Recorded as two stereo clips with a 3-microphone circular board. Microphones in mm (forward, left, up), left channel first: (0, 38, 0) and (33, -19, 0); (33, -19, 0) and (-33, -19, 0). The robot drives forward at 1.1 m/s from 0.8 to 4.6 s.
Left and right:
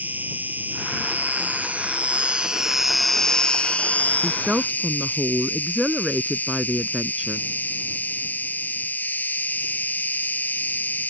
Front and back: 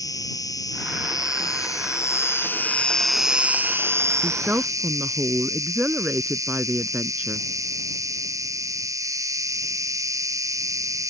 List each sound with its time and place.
0.0 s an insect: straight ahead; by 11.1 s 175° left
4.2 s a woman speaking: 100° right; by 7.5 s 135° right